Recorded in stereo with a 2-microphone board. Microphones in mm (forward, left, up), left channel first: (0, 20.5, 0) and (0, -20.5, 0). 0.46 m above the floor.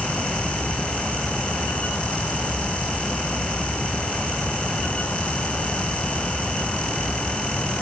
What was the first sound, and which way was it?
Only background noise.